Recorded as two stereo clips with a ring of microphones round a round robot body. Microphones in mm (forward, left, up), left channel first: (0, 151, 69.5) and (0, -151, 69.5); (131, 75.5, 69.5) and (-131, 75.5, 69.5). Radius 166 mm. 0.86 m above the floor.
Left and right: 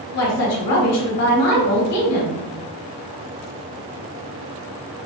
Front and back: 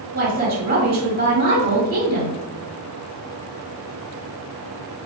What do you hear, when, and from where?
0.1 s a woman speaking: 130° left, 1.5 m